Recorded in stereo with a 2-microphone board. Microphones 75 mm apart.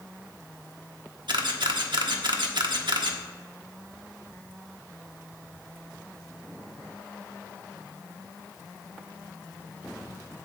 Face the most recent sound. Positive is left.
turn(degrees=-80)